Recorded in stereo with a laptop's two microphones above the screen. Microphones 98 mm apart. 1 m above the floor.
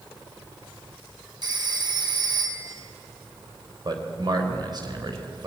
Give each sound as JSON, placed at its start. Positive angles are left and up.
{"t": 1.4, "sound": "a phone ringing", "side_deg": -50, "distance_m": 4.0}
{"t": 3.9, "sound": "a man speaking", "side_deg": -45, "distance_m": 3.5}